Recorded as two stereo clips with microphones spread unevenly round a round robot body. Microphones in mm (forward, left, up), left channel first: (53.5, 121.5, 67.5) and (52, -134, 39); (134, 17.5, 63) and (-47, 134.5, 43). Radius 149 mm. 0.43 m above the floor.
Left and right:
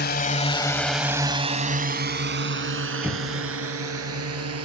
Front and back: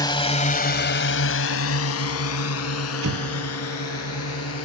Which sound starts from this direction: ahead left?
A drone, at 0.0 s.